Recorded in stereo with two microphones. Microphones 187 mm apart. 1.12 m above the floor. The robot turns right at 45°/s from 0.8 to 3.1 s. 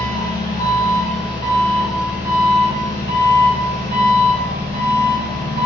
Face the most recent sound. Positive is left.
turn(degrees=-125)